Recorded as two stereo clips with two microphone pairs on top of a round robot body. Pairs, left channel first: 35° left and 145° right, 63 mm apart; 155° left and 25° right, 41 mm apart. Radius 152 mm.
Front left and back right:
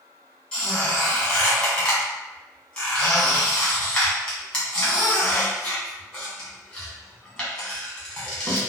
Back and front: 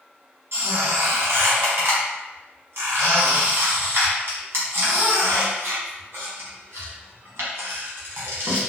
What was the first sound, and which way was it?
A squeak, 35° right.